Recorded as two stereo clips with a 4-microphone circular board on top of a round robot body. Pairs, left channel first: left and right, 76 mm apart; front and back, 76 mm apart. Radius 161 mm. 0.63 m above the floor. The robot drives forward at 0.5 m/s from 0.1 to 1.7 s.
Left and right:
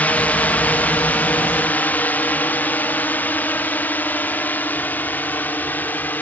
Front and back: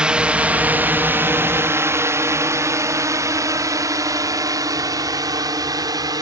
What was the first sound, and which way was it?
A drone, 120° left.